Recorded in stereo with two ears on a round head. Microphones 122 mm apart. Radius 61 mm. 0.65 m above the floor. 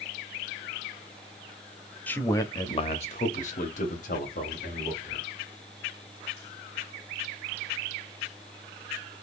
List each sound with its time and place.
2.1 s a man speaking: 10° left (ahead or behind), 0.7 m; by 5.2 s 65° left (ahead or behind), 1.6 m